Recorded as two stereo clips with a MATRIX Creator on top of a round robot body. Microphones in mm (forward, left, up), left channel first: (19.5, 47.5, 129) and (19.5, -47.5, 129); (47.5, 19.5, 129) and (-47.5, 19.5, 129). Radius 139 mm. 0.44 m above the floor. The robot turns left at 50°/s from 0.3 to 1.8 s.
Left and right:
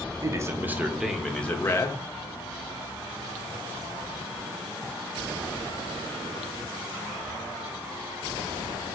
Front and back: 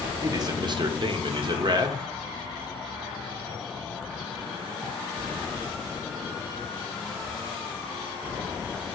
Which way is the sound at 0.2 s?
140° right.